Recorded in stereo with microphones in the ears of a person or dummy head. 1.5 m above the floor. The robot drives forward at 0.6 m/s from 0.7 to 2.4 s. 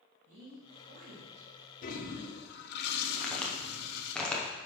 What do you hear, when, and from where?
0.3 s a woman speaking: 75° right (ahead or behind), 2.5 m; by 1.5 s 65° right (ahead or behind), 2.5 m
1.8 s a toilet flushing: 45° left (ahead or behind), 1.1 m; by 4.2 s 60° left (ahead or behind), 0.9 m
3.2 s a crack: 10° left (ahead or behind), 0.9 m